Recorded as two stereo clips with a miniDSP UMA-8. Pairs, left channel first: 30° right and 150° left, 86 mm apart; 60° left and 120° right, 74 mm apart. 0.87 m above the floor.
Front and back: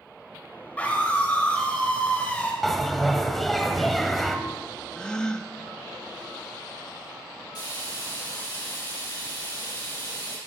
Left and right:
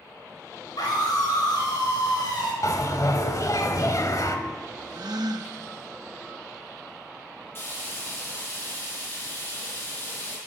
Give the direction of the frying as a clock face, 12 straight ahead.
12 o'clock.